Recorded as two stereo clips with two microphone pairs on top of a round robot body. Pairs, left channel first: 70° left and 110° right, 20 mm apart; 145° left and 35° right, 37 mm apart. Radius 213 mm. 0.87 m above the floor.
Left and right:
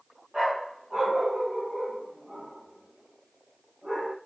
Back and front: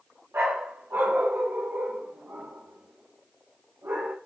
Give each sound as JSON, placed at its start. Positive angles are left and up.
{"t": 0.3, "sound": "a dog barking", "azimuth_deg": -40, "distance_m": 2.5}